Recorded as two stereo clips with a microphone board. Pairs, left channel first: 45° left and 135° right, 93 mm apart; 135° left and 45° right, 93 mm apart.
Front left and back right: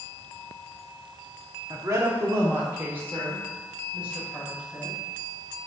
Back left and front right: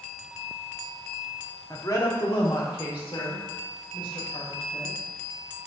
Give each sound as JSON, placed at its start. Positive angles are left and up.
{"t": 1.7, "sound": "a woman speaking", "azimuth_deg": 180, "distance_m": 1.2}